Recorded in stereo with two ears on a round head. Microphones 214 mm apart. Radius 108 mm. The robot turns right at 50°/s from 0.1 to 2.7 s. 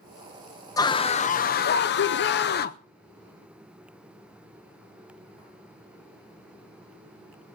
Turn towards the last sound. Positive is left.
turn(degrees=115)